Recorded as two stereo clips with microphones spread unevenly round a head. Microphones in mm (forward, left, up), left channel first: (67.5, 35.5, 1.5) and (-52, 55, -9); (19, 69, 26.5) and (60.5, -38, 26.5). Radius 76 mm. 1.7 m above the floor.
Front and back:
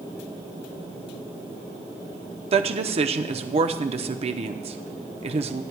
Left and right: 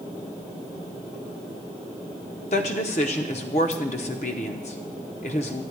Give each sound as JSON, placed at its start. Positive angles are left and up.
{"t": 2.5, "sound": "a woman speaking", "azimuth_deg": 145, "distance_m": 0.8}